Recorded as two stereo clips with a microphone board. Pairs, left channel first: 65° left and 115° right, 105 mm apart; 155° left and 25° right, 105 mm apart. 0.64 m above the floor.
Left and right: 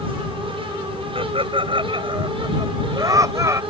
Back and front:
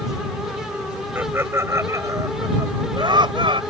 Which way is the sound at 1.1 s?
90° right.